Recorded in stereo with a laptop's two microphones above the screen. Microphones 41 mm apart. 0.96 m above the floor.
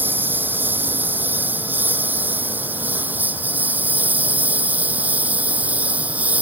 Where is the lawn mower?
55° right (ahead or behind); by 6.4 s 40° right (ahead or behind).